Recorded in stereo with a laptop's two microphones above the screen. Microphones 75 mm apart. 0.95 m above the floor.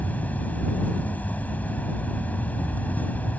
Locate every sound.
0.0 s an insect: 25° left (ahead or behind)